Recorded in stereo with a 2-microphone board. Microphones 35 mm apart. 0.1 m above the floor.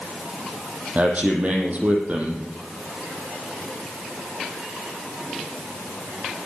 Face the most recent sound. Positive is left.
turn(degrees=-45)  # may be behind; listen again after turning